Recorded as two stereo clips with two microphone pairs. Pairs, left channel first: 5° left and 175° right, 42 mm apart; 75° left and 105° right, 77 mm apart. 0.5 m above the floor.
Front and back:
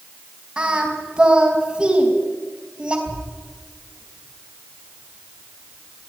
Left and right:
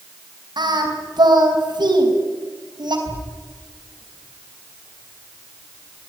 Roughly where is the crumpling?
No crumpling in this recording.